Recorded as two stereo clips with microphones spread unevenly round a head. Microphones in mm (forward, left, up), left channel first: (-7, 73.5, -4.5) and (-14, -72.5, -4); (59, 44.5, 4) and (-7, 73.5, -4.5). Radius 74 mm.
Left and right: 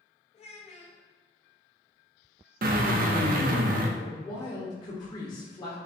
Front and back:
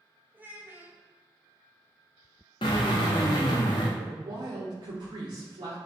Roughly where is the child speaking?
Left.